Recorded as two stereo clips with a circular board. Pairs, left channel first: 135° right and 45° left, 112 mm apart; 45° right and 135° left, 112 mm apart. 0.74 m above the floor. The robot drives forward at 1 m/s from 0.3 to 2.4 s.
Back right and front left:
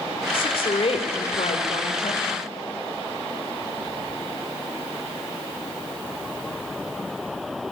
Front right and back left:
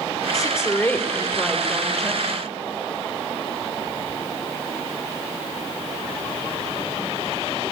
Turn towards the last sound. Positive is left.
turn(degrees=-140)